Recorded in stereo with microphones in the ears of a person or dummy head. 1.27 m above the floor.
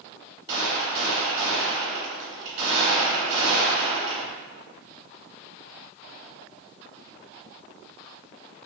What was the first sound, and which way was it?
A gunshot, 35° right (ahead or behind).